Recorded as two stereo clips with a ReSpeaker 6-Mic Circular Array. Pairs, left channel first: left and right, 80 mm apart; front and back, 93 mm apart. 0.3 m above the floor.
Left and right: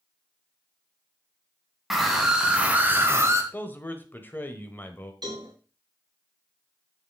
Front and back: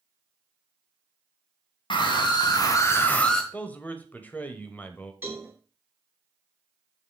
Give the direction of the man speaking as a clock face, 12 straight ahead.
10 o'clock.